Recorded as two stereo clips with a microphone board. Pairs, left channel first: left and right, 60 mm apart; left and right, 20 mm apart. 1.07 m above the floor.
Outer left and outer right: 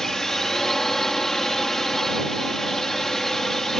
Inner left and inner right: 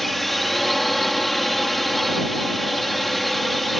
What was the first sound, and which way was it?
A drone, 5° left (ahead or behind).